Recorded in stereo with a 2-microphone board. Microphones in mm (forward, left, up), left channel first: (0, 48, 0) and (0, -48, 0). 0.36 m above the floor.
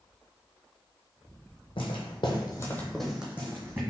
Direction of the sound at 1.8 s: 70° left (ahead or behind).